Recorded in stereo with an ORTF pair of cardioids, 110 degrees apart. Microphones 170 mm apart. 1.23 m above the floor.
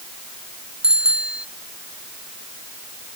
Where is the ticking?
I don't hear ticking.